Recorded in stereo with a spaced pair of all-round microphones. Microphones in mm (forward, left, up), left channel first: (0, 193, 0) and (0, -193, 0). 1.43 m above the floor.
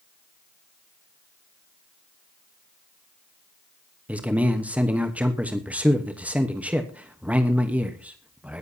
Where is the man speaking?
5° right (ahead or behind), 1.1 m.